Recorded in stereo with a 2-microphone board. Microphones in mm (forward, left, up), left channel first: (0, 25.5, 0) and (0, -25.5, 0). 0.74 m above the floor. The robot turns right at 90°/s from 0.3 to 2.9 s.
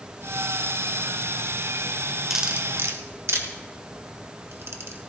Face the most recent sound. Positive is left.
turn(degrees=-60)  # may be behind; listen again after turning